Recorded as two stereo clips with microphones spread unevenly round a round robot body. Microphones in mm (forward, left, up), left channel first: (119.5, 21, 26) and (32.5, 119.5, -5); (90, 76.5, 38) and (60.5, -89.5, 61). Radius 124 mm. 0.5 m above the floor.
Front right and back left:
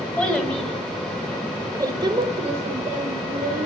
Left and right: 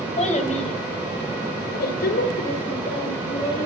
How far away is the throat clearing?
I don't hear throat clearing.